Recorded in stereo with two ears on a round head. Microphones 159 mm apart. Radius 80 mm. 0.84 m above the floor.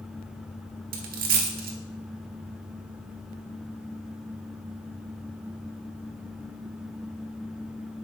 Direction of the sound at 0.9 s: 55° right (ahead or behind).